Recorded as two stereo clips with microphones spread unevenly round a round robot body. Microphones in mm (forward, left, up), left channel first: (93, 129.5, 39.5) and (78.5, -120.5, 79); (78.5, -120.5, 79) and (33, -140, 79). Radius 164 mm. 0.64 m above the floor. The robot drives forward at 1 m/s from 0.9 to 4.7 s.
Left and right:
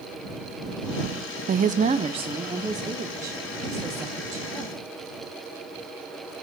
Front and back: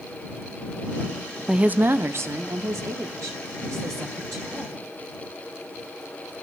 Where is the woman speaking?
95° right, 0.5 m; by 4.8 s 175° right, 3.5 m.